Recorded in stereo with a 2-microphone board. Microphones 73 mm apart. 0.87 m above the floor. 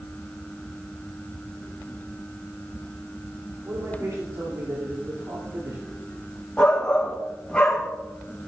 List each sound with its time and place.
3.6 s a man speaking: 50° right (ahead or behind), 3 m
6.6 s a shout: 15° left (ahead or behind), 1.4 m